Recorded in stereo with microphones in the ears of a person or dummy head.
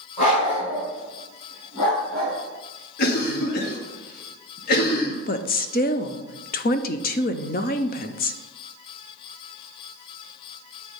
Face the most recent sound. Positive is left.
turn(degrees=35)  # may be behind; listen again after turning